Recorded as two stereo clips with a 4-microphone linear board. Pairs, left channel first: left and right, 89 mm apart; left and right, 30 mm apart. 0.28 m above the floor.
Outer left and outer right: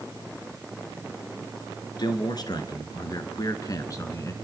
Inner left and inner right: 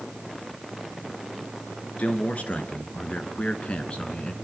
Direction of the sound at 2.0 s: 50° left (ahead or behind).